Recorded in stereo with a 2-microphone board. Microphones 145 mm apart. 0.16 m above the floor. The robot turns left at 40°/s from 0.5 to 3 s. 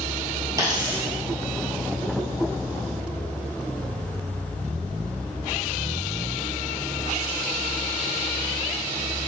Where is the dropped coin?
25° right (ahead or behind), 1.4 m; by 1.1 s 40° right (ahead or behind), 1.4 m.